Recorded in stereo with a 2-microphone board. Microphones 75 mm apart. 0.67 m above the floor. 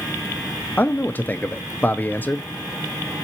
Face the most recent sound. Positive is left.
turn(degrees=25)  # may be behind; listen again after turning